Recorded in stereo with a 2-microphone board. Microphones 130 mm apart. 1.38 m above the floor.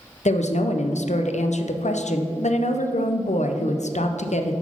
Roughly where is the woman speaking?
Left.